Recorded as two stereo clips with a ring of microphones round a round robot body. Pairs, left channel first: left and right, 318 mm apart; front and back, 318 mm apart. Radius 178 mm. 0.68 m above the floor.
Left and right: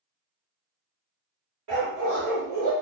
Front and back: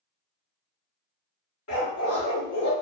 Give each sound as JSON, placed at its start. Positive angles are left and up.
{"t": 1.7, "sound": "a dog barking", "azimuth_deg": -45, "distance_m": 1.9}